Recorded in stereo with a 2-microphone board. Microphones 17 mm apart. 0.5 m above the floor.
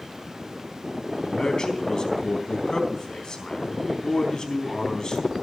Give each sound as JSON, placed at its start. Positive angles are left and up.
{"t": 1.2, "sound": "a man speaking", "side_deg": 45, "distance_m": 3.5}